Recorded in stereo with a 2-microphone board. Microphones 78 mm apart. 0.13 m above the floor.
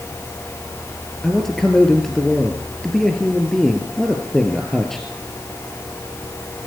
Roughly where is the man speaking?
Centre.